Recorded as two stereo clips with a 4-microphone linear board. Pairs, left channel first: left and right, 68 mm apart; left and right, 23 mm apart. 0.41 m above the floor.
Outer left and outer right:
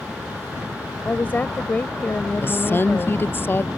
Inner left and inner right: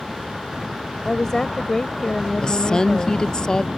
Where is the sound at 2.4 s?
30° left (ahead or behind).